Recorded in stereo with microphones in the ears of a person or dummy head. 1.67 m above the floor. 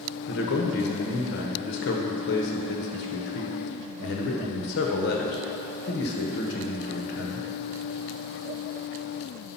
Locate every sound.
0.3 s a man speaking: 55° left (ahead or behind), 0.9 m